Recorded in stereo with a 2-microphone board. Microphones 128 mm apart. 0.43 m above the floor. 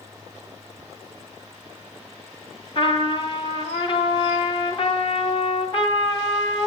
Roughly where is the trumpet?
Left.